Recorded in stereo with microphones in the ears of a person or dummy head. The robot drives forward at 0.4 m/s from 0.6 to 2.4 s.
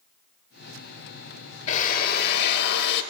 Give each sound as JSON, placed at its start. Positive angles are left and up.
{"t": 1.7, "sound": "a drill", "side_deg": 45, "distance_m": 0.7}